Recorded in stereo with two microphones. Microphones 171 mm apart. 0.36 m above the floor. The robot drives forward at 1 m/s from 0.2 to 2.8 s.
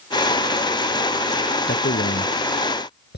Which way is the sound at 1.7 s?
75° left (ahead or behind).